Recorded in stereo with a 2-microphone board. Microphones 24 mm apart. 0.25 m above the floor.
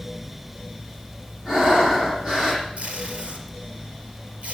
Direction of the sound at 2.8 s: 40° right (ahead or behind).